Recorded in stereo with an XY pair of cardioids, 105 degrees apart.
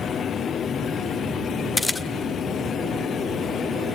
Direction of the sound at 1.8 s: 15° left.